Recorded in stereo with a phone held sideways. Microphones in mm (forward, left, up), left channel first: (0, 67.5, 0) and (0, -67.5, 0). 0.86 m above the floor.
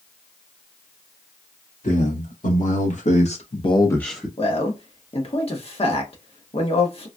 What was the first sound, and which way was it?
A man speaking, 65° left (ahead or behind).